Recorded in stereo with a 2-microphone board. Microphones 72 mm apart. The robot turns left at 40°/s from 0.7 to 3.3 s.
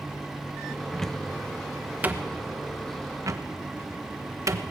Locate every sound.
0.9 s a cupboard door: 10° left (ahead or behind), 1.1 m; by 4.6 s 45° right (ahead or behind), 1.1 m